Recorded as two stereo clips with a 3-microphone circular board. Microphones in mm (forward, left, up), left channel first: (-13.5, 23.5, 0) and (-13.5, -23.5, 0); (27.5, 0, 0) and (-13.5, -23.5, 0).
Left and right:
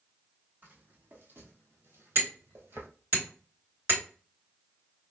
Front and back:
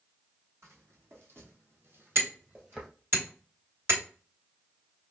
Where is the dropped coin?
I don't hear a dropped coin.